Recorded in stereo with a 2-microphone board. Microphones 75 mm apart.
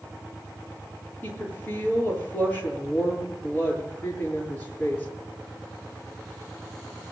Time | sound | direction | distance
1.2 | a woman speaking | 25° left (ahead or behind) | 8 m